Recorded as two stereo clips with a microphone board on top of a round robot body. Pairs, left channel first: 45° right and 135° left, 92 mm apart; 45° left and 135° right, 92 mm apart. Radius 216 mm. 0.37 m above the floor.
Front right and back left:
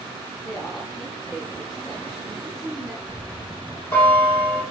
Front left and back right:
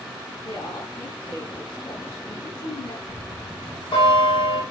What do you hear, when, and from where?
0.4 s a woman speaking: 40° left, 5 m
3.1 s a bell: 25° left, 4.5 m